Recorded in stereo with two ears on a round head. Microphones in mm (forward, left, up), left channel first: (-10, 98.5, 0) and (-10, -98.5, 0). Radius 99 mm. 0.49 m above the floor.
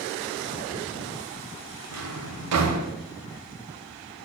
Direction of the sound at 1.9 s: 80° right.